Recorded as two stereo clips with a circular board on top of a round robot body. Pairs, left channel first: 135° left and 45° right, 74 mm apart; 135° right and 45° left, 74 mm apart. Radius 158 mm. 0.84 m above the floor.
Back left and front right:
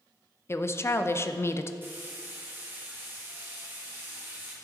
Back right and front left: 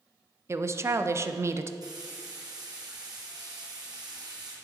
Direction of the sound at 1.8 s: 15° left.